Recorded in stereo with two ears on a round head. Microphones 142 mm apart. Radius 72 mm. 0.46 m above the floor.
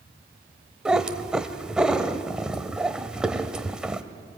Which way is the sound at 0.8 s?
5° right (ahead or behind).